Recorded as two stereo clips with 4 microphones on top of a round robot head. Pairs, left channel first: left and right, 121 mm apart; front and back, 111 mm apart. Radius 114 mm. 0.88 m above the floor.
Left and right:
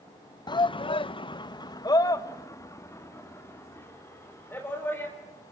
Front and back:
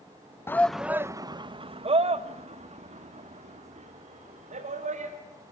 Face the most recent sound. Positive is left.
turn(degrees=165)